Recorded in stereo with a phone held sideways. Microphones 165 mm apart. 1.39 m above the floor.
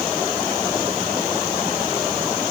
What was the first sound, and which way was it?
Only background noise.